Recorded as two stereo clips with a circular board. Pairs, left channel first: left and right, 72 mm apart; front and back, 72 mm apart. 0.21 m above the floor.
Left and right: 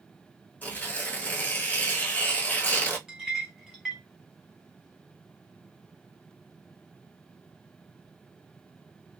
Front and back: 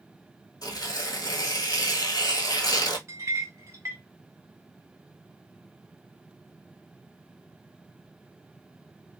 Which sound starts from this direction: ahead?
Tearing paper, at 0.6 s.